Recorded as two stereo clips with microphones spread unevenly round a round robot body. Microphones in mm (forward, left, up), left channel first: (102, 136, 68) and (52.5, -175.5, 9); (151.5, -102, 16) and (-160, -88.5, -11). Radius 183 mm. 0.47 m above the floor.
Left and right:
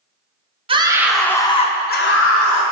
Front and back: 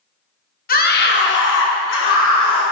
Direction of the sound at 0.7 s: 55° right.